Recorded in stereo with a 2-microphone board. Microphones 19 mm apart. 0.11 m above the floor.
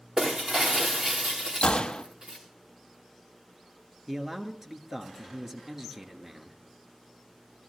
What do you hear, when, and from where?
0.2 s breaking glass: 55° right (ahead or behind), 3.5 m
1.6 s a gunshot: 70° left (ahead or behind), 1.1 m
4.1 s a man speaking: 25° right (ahead or behind), 1.4 m